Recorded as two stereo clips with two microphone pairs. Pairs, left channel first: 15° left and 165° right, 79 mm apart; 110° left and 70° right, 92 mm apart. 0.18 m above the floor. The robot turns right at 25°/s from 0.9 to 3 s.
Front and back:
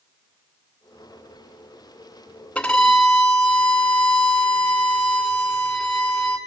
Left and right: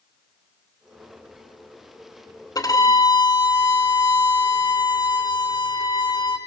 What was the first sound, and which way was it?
A violin, 85° left.